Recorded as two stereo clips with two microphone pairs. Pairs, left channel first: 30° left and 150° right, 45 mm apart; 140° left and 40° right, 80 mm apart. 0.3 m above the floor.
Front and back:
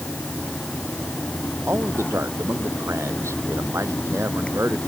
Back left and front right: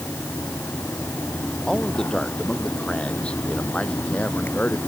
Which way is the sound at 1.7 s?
140° right.